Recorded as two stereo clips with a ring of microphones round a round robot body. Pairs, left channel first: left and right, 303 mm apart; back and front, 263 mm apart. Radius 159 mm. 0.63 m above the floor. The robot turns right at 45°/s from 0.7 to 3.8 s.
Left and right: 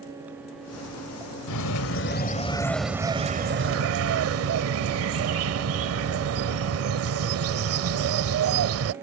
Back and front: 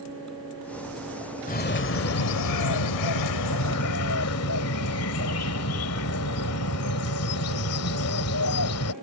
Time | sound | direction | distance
1.5 | a bird | 120° left | ?